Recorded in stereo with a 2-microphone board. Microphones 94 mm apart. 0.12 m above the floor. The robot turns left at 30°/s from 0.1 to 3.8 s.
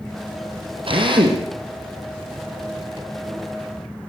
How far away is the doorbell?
No doorbell in this recording.